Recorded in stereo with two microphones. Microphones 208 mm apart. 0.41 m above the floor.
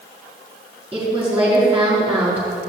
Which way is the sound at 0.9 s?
5° right (ahead or behind).